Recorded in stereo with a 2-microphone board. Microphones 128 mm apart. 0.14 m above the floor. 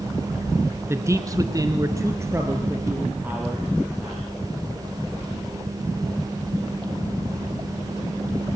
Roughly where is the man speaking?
Right.